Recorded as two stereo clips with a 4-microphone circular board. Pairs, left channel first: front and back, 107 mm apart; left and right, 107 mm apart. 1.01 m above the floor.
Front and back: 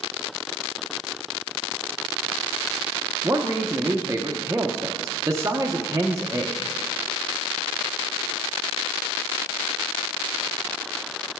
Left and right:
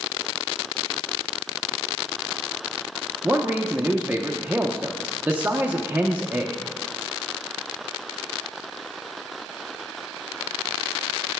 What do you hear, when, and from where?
3.2 s a man speaking: 150° right, 0.6 m